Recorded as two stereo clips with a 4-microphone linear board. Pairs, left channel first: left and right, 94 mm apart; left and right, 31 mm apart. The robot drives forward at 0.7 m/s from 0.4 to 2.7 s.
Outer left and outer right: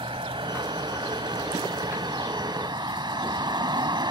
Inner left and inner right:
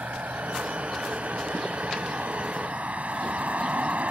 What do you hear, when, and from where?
0.0 s a vehicle: 75° right (ahead or behind); by 4.1 s 55° right (ahead or behind)